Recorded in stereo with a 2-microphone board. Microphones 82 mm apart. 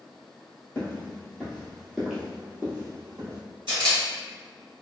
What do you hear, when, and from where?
0.8 s footsteps: 25° left (ahead or behind), 1.4 m; by 3.4 s 35° right (ahead or behind), 1.5 m
3.7 s a camera shutter: 65° right (ahead or behind), 1.3 m